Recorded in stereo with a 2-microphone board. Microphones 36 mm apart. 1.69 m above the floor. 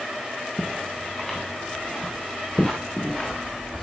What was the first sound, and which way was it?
Footsteps, 15° left (ahead or behind).